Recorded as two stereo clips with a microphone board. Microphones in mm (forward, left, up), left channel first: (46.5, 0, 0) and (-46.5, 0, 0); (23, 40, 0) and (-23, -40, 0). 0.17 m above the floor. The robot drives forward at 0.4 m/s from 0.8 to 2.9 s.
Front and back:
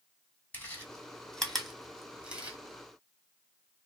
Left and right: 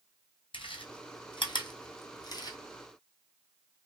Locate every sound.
0.5 s chewing: 70° left, 1.2 m; by 2.6 s 105° left, 1.1 m